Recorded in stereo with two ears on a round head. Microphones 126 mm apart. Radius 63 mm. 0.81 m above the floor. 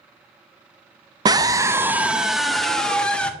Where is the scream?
30° right (ahead or behind), 0.5 m; by 3.3 s 10° left (ahead or behind), 1.2 m.